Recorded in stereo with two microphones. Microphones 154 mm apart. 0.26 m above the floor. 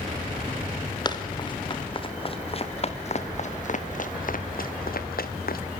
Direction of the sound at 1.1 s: 30° left (ahead or behind).